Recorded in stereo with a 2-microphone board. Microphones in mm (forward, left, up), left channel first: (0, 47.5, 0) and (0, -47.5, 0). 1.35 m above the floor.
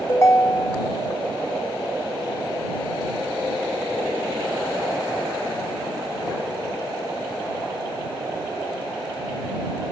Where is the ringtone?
25° left (ahead or behind).